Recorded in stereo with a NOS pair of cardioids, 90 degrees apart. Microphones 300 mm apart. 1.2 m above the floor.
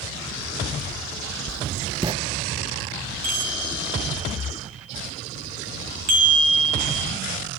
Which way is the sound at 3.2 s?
65° right.